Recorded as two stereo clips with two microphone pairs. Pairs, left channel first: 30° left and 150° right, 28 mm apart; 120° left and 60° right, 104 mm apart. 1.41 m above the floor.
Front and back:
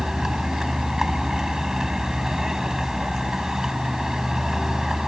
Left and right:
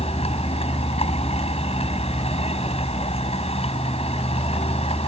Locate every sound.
0.0 s a vehicle: 135° left